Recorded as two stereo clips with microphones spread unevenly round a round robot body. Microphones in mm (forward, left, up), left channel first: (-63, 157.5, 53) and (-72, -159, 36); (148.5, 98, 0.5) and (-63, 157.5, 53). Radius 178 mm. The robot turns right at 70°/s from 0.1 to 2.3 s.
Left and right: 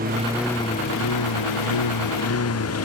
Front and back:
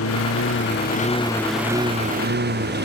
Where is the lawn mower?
25° right; by 2.9 s 130° left.